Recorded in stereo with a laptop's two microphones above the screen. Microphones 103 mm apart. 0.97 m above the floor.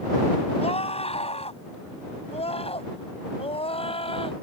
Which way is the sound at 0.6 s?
80° left.